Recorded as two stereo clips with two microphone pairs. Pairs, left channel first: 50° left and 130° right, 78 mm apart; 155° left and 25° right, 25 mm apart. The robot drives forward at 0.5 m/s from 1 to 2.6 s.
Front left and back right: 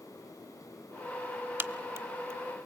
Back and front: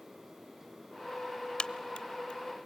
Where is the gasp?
I don't hear a gasp.